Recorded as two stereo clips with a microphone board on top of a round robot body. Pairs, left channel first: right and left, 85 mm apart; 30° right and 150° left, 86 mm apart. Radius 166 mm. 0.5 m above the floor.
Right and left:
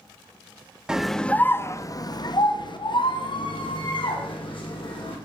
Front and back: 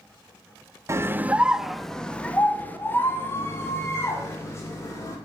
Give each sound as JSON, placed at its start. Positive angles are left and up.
{"t": 0.9, "sound": "a scream", "azimuth_deg": 165, "distance_m": 0.8}